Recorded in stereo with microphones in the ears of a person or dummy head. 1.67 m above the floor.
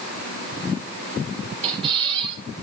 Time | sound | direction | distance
1.6 | a squeak | 30° right (ahead or behind) | 5 m